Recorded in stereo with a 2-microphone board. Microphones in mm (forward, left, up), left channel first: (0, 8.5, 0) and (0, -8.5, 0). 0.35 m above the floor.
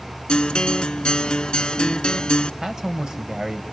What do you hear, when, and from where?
0.3 s a guitar: 65° left (ahead or behind), 0.6 m
2.6 s a man speaking: 35° right (ahead or behind), 1.4 m